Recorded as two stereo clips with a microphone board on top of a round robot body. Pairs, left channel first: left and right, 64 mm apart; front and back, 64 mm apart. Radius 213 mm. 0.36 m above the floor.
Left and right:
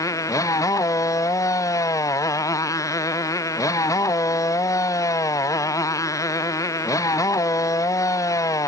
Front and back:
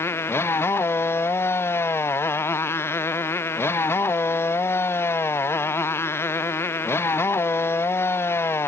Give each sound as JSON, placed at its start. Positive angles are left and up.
{"t": 0.0, "sound": "a motorcycle", "azimuth_deg": 55}